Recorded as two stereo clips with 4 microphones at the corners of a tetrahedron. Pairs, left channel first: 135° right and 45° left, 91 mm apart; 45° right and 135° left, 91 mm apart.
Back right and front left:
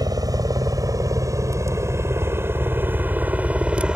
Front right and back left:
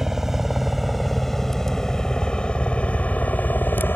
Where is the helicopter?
50° left; by 4.0 s 20° right.